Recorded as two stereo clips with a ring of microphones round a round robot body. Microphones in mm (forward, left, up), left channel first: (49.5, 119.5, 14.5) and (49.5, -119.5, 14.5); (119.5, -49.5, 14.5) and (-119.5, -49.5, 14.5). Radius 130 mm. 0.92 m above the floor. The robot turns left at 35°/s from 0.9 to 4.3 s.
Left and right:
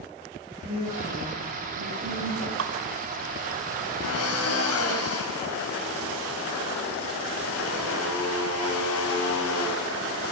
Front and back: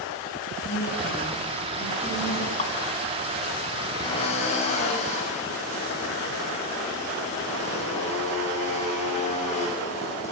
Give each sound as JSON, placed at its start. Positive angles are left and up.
{"t": 0.6, "sound": "a woman speaking", "azimuth_deg": -30, "distance_m": 9.0}
{"t": 2.6, "sound": "dripping", "azimuth_deg": -60, "distance_m": 2.0}
{"t": 4.0, "sound": "a drill", "azimuth_deg": 75, "distance_m": 6.5}